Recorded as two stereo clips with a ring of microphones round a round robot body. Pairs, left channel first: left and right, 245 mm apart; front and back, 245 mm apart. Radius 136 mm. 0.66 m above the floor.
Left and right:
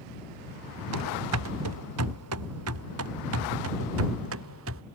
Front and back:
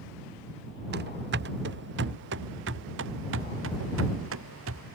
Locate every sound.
0.9 s running footsteps: 125° right; by 4.8 s 135° right